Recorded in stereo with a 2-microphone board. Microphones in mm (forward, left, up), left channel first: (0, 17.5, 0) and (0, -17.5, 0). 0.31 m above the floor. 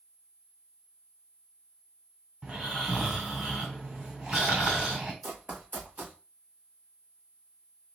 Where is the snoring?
30° right (ahead or behind), 2.5 m.